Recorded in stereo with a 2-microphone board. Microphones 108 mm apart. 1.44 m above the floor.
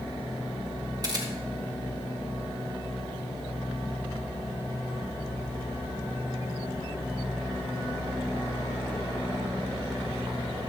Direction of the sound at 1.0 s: 35° right (ahead or behind).